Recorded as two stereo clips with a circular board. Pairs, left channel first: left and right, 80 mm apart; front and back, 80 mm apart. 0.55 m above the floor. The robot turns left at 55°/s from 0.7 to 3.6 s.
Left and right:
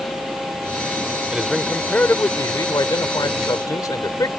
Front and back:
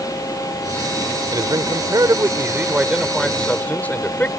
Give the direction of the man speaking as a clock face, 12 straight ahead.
6 o'clock.